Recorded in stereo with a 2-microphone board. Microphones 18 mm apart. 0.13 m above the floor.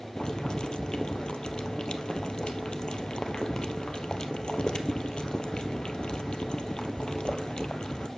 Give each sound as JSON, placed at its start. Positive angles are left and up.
{"t": 0.2, "sound": "boiling", "side_deg": 55, "distance_m": 1.1}